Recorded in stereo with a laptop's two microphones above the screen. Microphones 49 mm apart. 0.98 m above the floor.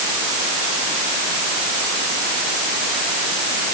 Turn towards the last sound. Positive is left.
No sound to turn to.